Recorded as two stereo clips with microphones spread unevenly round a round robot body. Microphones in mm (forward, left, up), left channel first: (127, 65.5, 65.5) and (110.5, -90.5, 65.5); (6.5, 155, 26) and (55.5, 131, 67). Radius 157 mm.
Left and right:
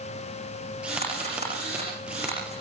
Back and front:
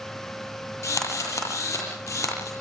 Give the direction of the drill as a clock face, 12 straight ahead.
6 o'clock.